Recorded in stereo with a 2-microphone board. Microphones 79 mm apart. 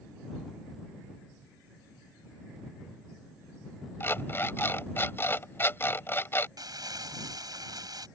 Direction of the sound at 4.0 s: 30° left (ahead or behind).